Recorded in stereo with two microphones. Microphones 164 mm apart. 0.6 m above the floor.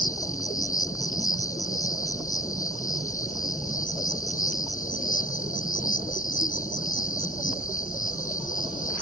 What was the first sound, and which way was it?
An insect, 55° left (ahead or behind).